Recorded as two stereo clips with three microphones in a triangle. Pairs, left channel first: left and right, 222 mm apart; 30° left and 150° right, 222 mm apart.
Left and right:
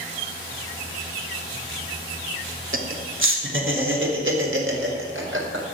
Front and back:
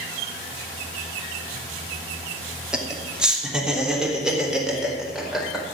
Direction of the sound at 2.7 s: 65° right.